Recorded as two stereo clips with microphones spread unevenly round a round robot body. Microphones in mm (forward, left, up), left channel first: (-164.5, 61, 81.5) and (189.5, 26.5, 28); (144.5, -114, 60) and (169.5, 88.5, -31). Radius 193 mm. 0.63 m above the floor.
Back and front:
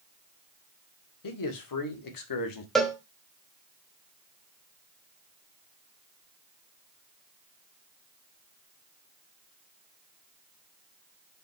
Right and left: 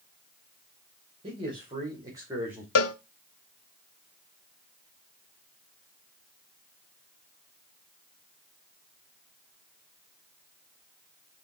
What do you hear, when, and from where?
1.2 s a man speaking: 140° left, 2.5 m; by 2.6 s 150° left, 1.7 m
2.8 s a cowbell: 95° right, 0.9 m